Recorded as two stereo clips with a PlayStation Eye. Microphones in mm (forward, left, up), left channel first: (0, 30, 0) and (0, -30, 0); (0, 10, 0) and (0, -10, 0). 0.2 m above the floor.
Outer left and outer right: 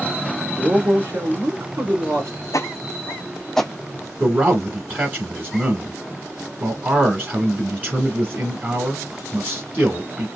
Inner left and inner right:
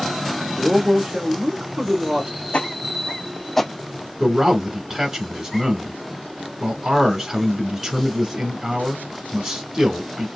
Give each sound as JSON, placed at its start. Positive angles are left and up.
{"t": 0.6, "sound": "a man speaking", "side_deg": -55, "distance_m": 2.0}
{"t": 2.5, "sound": "footsteps", "side_deg": 65, "distance_m": 0.7}
{"t": 4.2, "sound": "a man speaking", "side_deg": -35, "distance_m": 1.6}